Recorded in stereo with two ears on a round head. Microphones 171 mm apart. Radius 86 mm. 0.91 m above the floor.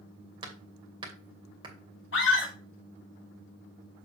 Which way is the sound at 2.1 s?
65° left (ahead or behind).